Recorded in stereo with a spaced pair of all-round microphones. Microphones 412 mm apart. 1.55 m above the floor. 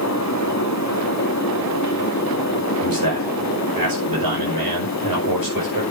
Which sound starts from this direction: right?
A man speaking, at 2.8 s.